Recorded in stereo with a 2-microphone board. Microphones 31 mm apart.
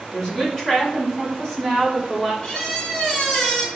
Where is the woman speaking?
15° left (ahead or behind), 1.2 m; by 2.3 s 10° left (ahead or behind), 2 m.